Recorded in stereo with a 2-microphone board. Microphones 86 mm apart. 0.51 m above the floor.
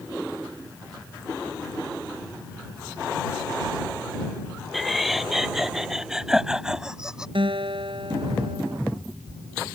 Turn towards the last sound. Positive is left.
turn(degrees=-75)  # may be behind; listen again after turning